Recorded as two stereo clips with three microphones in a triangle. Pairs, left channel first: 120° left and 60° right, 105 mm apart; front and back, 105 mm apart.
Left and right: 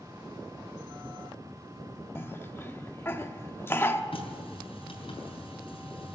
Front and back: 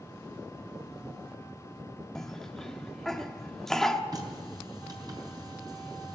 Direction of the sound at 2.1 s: 80° left.